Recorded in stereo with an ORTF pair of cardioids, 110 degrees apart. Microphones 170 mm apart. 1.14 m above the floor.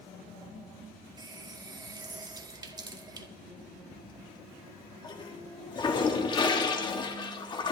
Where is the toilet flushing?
25° left, 1.8 m.